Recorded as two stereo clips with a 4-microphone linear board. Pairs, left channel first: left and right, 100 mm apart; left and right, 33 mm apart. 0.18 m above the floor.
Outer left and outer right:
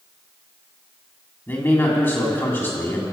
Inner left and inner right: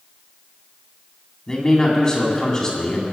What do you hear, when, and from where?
1.5 s a man speaking: 25° left (ahead or behind), 1.7 m